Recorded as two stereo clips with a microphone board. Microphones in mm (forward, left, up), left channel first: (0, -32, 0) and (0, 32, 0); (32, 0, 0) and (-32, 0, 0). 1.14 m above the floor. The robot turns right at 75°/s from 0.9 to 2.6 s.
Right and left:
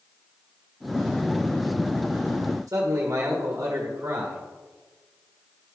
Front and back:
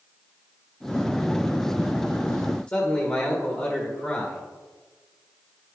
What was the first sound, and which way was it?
A man speaking, 60° left.